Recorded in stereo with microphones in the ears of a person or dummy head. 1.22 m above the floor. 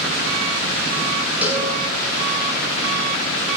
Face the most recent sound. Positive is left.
turn(degrees=-10)  # may be behind; listen again after turning